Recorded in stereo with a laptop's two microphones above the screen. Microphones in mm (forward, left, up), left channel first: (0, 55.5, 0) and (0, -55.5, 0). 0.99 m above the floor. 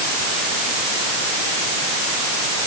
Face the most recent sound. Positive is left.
No sound to turn to.